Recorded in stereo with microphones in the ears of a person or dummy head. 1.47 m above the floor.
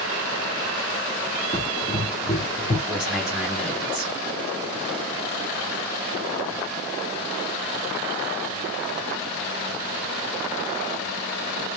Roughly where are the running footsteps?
Left.